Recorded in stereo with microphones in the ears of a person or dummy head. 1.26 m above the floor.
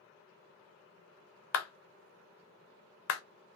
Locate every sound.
1.5 s a clap: 70° left (ahead or behind), 0.5 m